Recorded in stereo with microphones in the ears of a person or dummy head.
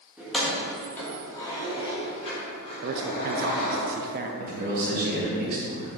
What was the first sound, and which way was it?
Keys jangling, centre (ahead or behind).